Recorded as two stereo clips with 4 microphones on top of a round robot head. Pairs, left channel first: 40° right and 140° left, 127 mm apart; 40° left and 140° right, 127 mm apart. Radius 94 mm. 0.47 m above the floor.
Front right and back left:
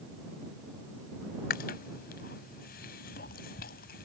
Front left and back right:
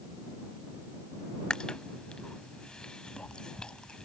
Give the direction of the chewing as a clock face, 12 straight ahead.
1 o'clock.